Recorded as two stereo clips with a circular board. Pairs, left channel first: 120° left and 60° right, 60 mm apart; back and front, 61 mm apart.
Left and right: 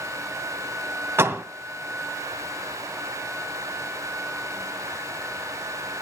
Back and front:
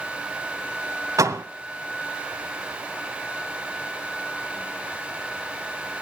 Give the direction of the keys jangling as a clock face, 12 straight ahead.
I don't hear keys jangling.